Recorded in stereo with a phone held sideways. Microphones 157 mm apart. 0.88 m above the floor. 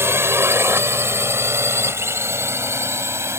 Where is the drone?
15° right (ahead or behind).